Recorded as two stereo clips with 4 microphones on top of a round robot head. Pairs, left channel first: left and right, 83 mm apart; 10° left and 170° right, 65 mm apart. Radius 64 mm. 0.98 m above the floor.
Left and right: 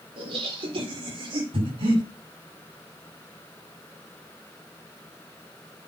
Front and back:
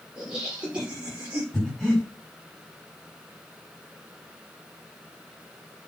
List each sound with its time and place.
0.2 s laughter: 85° right, 4 m; by 1.4 s 105° right, 4 m
1.5 s breathing: 85° right, 6 m